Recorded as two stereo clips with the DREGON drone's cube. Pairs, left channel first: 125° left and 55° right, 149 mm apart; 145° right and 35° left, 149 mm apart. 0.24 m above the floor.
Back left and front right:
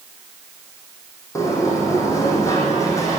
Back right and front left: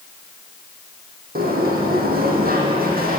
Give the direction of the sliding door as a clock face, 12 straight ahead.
10 o'clock.